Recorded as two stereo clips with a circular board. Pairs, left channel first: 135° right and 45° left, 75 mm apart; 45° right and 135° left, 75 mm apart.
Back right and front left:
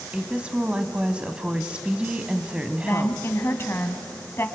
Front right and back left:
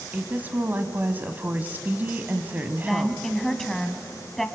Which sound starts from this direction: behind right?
A woman speaking, at 2.8 s.